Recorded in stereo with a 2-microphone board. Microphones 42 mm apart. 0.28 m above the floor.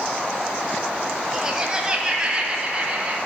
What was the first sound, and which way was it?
Laughter, 15° right (ahead or behind).